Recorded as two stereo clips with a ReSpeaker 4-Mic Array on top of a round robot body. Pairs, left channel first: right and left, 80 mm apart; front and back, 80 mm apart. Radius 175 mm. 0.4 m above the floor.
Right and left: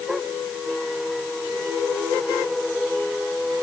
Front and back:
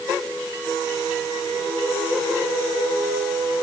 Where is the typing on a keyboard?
I don't hear typing on a keyboard.